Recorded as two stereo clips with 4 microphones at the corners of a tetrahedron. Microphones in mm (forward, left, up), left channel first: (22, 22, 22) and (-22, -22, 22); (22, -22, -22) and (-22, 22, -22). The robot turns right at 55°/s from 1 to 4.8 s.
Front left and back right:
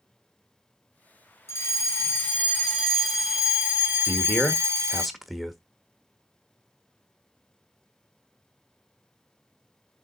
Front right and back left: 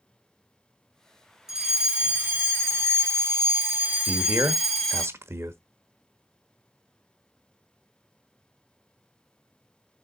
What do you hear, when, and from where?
1.5 s a fire alarm: 55° left, 2.5 m; by 5.1 s 125° right, 2.5 m
4.1 s a man speaking: 95° left, 1.2 m; by 5.6 s 135° left, 1.2 m